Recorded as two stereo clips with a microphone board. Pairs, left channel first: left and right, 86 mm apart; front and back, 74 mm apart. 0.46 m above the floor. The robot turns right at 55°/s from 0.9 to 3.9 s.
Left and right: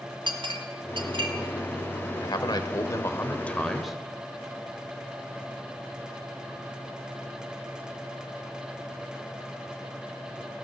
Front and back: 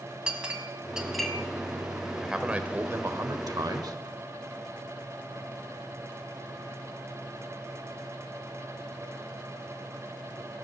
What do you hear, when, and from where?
0.3 s a clink: 105° right, 1.7 m; by 1.3 s 80° right, 1.7 m
2.2 s a man speaking: 90° left, 1.3 m; by 4.0 s 175° right, 1.3 m